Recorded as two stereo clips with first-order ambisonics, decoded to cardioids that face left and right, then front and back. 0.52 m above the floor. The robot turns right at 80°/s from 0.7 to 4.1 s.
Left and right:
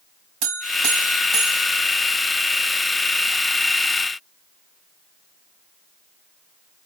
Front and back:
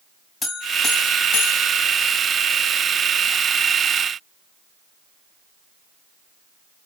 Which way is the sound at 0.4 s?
80° right.